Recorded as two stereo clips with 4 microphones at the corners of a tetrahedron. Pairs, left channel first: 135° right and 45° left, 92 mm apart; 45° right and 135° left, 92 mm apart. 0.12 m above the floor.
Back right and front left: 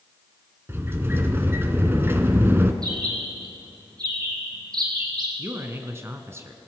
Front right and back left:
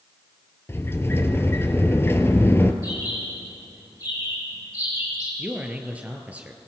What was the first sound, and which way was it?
A sliding door, 5° right.